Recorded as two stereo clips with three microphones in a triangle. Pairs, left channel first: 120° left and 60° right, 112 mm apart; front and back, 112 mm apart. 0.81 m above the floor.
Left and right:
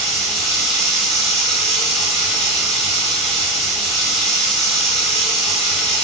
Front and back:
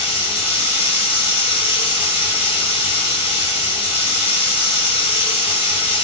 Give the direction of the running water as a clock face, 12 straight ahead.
11 o'clock.